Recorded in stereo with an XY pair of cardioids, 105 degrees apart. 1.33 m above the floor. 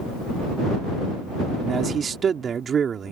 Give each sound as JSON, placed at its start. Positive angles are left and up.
{"t": 1.6, "sound": "a man speaking", "azimuth_deg": -45}